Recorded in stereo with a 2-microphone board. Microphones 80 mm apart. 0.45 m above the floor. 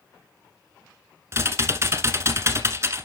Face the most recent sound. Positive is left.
turn(degrees=-35)  # may be behind; listen again after turning